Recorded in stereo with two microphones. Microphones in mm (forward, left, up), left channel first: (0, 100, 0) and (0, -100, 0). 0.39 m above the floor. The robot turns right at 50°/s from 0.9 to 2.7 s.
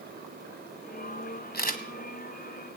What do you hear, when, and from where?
1.5 s a camera shutter: 55° left (ahead or behind), 1.4 m; by 1.8 s 40° left (ahead or behind), 1.4 m